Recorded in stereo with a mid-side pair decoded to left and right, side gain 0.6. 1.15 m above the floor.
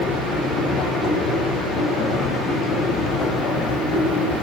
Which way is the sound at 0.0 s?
65° left.